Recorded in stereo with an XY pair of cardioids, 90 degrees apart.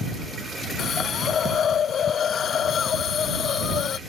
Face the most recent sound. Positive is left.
turn(degrees=65)